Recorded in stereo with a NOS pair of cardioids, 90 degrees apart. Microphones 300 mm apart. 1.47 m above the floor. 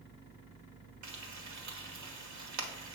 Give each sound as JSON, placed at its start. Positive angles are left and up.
{"t": 1.0, "sound": "frying", "azimuth_deg": -70, "distance_m": 1.3}